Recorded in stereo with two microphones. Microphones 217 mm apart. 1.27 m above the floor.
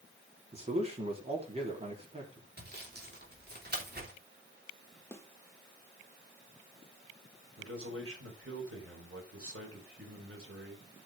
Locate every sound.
0.5 s a man speaking: 30° right (ahead or behind), 3.5 m
2.6 s sawing: 50° right (ahead or behind), 3 m
5.1 s a snare drum: 10° left (ahead or behind), 1.5 m
7.6 s a man speaking: 90° right, 4.5 m